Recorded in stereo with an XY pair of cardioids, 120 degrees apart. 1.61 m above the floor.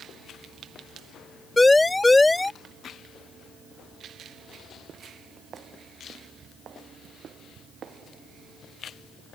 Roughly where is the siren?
Ahead.